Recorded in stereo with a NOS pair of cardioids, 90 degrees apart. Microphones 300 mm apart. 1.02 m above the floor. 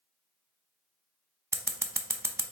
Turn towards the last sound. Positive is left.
turn(degrees=-10)